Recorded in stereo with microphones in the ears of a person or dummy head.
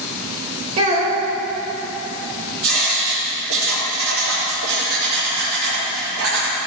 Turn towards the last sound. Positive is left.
turn(degrees=-80)